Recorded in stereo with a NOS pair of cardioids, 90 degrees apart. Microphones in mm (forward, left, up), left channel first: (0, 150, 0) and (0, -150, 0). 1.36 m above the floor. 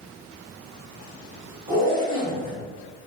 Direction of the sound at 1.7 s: 25° right.